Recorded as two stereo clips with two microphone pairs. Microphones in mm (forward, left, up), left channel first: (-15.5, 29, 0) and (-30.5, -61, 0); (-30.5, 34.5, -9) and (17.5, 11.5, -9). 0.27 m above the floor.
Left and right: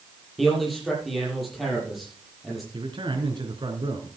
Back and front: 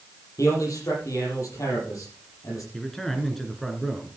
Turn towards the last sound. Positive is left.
turn(degrees=-125)